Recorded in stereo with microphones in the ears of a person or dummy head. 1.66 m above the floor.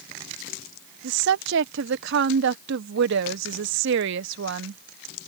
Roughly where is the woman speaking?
Right.